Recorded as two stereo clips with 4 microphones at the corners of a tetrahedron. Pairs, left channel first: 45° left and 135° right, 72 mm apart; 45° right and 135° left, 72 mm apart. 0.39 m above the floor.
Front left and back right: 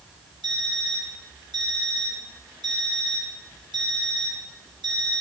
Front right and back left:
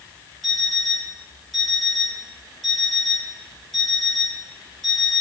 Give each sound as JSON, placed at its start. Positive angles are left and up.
{"t": 0.4, "sound": "an alarm clock", "azimuth_deg": -135, "distance_m": 3.0}